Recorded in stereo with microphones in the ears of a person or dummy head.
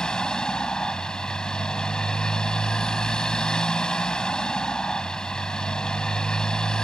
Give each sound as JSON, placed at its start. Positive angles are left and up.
{"t": 0.0, "sound": "a motorcycle", "side_deg": 5}